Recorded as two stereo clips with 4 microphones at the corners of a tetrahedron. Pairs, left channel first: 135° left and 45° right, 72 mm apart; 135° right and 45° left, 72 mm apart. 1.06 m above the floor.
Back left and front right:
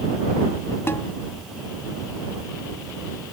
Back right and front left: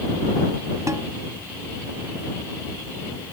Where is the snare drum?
80° left.